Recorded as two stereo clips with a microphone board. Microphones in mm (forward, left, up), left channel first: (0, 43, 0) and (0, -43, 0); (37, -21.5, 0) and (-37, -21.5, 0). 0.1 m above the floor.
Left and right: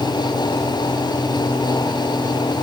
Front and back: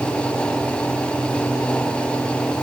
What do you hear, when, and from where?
Only background noise.